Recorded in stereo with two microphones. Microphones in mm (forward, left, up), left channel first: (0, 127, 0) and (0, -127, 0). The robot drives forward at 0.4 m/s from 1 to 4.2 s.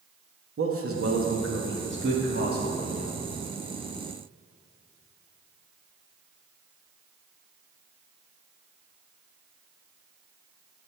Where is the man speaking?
55° right (ahead or behind), 0.9 m; by 3.2 s 30° right (ahead or behind), 1.4 m.